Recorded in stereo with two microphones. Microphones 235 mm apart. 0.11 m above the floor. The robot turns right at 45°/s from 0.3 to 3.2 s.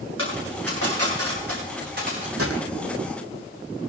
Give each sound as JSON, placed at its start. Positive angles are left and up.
{"t": 0.2, "sound": "a dropped coin", "side_deg": -60, "distance_m": 8.0}
{"t": 2.4, "sound": "a gunshot", "side_deg": -75, "distance_m": 3.0}